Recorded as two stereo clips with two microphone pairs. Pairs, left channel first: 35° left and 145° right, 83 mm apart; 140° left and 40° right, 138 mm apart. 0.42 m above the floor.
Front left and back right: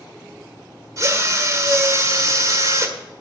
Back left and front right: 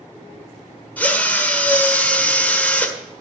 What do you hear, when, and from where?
1.0 s a drill: 150° right, 1.5 m